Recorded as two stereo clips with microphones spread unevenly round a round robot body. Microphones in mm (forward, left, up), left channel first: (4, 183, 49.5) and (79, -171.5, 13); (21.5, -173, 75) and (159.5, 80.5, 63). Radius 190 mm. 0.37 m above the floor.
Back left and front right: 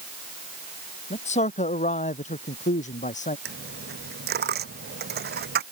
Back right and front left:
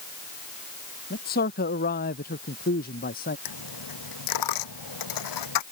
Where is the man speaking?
175° left.